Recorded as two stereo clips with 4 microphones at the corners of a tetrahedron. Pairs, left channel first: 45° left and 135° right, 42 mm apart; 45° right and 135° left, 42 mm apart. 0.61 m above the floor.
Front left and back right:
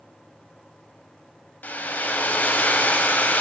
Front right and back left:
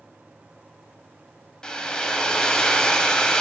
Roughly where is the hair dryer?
Ahead.